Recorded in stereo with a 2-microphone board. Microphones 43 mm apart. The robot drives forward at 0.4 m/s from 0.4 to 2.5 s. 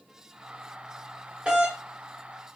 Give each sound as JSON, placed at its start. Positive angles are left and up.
{"t": 1.4, "sound": "a doorbell", "side_deg": -20, "distance_m": 1.6}